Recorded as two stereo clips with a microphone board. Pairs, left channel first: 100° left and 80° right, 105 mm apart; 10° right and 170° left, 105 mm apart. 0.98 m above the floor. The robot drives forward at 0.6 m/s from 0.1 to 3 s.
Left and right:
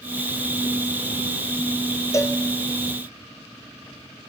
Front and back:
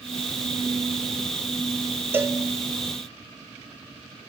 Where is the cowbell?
120° left, 0.6 m; by 2.4 s 140° left, 0.7 m.